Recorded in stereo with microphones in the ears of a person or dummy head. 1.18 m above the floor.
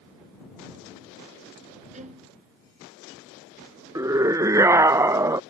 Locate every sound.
1.9 s a violin: 40° right (ahead or behind)
4.0 s a scream: 15° right (ahead or behind)